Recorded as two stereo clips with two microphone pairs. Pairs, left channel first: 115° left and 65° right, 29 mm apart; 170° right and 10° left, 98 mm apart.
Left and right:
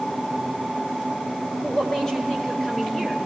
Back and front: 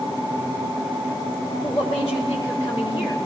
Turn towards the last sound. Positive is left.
turn(degrees=180)